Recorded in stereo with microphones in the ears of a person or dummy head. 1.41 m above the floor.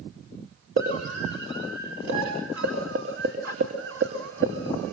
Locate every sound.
0.8 s a scream: 70° right (ahead or behind), 4 m; by 4.9 s 80° right, 2 m